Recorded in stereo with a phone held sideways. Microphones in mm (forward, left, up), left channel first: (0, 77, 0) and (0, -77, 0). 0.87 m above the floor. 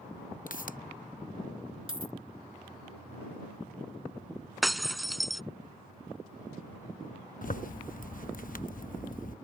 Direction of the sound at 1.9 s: 35° right (ahead or behind).